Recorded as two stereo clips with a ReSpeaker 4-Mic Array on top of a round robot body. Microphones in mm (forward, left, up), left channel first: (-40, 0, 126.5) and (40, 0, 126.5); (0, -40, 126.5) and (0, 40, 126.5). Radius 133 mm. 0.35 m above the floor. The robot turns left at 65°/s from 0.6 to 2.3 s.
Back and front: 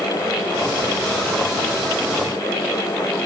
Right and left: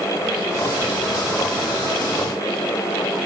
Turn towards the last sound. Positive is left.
No sound to turn to.